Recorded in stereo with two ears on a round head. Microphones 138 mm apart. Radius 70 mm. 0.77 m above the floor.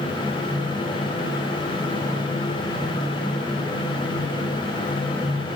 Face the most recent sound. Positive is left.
No sound to turn to.